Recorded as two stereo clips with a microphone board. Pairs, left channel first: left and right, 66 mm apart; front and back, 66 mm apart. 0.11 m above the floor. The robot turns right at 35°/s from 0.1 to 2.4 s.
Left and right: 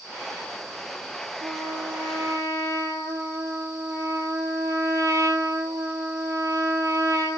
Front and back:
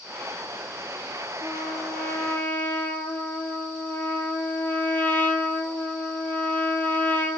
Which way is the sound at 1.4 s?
100° right.